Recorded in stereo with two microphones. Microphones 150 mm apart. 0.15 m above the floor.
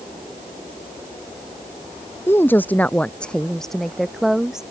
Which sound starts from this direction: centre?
A woman speaking, at 2.3 s.